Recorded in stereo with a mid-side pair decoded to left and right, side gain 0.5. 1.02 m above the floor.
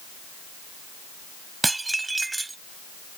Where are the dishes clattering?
20° right.